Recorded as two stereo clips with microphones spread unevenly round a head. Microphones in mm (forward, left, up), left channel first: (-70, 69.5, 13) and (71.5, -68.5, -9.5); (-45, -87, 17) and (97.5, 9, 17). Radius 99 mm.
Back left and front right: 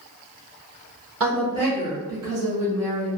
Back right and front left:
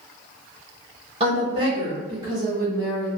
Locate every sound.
1.2 s a woman speaking: 20° right, 1.2 m; by 3.1 s 40° right, 2.5 m